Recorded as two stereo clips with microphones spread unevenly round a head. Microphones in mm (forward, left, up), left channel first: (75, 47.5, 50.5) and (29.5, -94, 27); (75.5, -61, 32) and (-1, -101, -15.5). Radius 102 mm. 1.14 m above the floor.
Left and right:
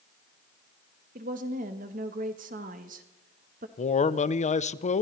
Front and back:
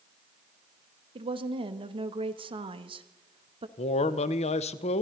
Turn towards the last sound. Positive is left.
turn(degrees=35)